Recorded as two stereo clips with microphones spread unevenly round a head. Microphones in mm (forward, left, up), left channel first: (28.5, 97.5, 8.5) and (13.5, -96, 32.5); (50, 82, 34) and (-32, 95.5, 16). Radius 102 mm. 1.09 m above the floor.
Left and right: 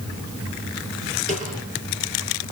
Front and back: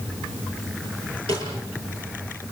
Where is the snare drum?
150° right, 8 m.